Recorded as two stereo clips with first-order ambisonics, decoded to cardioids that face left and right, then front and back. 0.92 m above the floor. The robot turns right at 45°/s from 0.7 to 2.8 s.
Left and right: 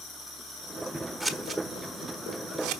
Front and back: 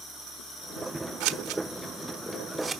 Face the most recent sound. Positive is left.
turn(degrees=-105)